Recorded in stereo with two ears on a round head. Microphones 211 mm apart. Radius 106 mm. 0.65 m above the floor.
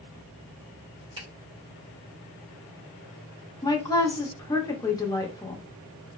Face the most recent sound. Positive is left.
turn(degrees=15)  # may be behind; listen again after turning